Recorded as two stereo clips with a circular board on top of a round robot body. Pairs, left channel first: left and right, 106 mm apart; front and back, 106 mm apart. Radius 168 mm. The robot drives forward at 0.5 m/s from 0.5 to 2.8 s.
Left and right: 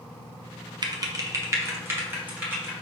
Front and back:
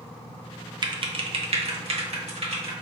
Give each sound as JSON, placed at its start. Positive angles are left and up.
{"t": 0.8, "sound": "typing on a keyboard", "azimuth_deg": -135, "distance_m": 0.6}